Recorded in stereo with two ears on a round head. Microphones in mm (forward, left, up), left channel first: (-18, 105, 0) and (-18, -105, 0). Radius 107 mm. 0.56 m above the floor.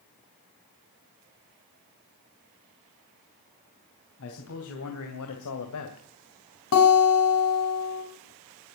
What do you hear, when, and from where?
4.2 s a man speaking: 60° left (ahead or behind), 3 m; by 6.0 s 65° left (ahead or behind), 2.0 m
6.7 s a guitar: 70° left (ahead or behind), 4 m